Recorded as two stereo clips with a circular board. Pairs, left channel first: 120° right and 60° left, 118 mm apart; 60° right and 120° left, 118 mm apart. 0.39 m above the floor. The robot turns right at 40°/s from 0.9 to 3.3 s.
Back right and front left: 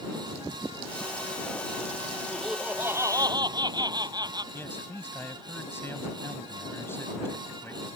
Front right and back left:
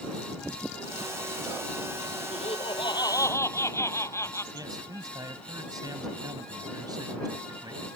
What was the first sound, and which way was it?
Laughter, 35° right.